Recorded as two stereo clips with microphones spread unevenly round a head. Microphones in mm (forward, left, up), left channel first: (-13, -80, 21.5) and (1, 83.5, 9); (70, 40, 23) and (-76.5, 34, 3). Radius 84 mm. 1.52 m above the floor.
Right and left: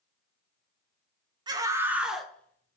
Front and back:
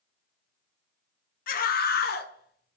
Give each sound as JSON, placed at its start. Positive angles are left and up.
{"t": 1.5, "sound": "a scream", "azimuth_deg": 15, "distance_m": 1.0}